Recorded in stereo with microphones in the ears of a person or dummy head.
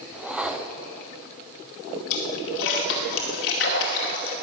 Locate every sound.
0.1 s a whoosh: 5° right (ahead or behind), 0.6 m
2.1 s a splash: 60° left (ahead or behind), 2 m